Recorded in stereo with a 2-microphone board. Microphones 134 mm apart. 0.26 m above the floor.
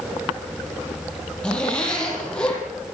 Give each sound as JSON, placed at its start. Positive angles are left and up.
{"t": 1.4, "sound": "a zipper", "side_deg": 10, "distance_m": 8.5}